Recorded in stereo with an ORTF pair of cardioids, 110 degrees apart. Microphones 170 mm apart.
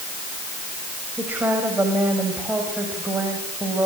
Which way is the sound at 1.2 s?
10° right.